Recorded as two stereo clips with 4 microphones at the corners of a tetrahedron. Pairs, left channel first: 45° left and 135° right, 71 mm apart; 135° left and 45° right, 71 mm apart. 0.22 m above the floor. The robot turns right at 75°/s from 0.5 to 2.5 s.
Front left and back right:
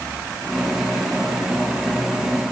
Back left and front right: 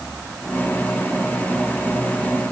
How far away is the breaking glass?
No breaking glass in this recording.